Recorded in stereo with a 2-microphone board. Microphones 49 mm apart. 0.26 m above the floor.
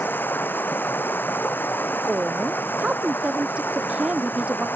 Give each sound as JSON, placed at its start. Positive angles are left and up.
{"t": 0.0, "sound": "running water", "side_deg": 45}
{"t": 2.1, "sound": "a woman speaking", "side_deg": -25}